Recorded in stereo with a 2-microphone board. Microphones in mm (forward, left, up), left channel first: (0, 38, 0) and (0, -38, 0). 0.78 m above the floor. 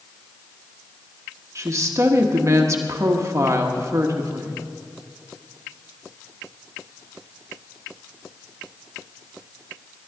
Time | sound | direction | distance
1.6 | a woman speaking | 40° right (ahead or behind) | 1.2 m